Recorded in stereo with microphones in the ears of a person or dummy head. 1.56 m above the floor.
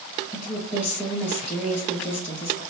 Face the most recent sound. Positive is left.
turn(degrees=10)  # may be behind; listen again after turning